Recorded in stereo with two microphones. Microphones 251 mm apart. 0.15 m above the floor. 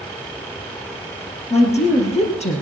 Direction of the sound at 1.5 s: 25° left (ahead or behind).